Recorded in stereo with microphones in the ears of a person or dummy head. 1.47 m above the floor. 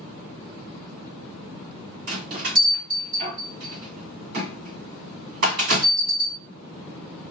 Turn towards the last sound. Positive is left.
turn(degrees=-55)  # may be behind; listen again after turning